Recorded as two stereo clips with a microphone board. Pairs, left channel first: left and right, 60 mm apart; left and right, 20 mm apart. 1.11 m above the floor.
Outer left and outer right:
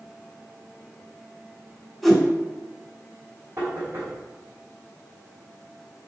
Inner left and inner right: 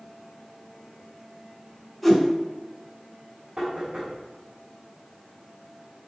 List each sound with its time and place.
2.0 s a whoosh: 5° left (ahead or behind), 2.5 m
3.6 s knocking: 40° right (ahead or behind), 3.5 m